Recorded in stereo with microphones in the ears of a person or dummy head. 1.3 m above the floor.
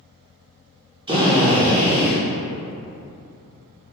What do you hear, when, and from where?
1.1 s a drill: 25° right (ahead or behind), 0.8 m